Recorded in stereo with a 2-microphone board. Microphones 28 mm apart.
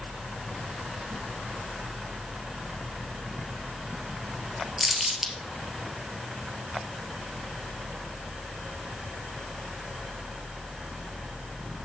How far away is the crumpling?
About 1.6 m.